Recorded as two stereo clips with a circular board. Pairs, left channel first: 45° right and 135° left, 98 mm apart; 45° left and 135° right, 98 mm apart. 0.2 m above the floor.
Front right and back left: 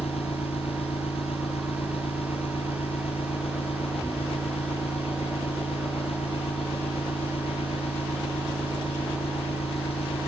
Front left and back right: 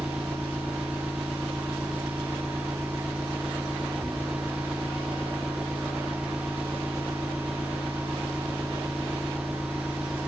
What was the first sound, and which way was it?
An engine running, 50° right.